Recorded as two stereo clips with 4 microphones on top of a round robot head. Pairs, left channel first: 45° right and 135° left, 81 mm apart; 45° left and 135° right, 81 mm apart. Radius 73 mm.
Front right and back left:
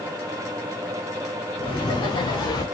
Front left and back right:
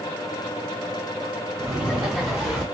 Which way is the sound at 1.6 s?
50° right.